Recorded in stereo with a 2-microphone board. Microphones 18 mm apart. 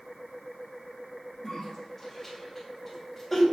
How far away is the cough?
About 3 m.